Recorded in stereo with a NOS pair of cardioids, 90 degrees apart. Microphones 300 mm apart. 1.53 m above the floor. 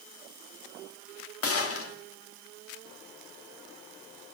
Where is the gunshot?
50° left, 2 m.